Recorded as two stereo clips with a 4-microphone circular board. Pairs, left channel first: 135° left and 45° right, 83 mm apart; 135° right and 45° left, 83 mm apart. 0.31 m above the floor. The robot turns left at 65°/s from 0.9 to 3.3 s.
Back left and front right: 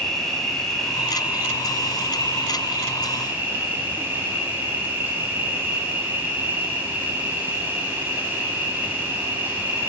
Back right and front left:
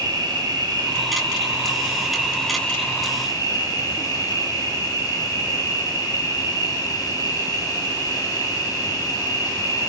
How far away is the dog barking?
No dog barking in this recording.